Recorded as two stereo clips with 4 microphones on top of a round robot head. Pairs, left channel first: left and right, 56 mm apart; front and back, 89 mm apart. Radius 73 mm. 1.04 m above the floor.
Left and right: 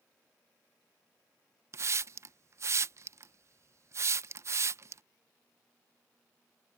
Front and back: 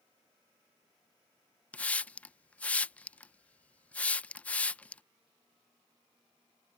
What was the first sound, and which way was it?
A hiss, 70° right.